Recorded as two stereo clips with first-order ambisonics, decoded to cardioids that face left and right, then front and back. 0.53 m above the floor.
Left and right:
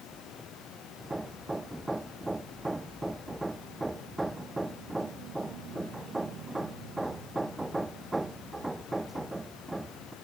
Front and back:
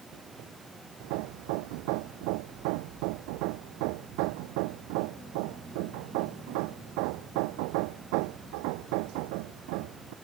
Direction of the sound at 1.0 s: 170° right.